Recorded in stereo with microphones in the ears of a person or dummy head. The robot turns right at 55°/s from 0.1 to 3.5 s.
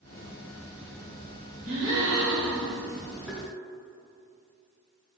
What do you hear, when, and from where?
1.6 s a gasp: 120° right, 2 m; by 2.7 s 60° right, 2 m
3.3 s tapping: 5° right (ahead or behind), 1.1 m; by 3.5 s 5° left (ahead or behind), 1.1 m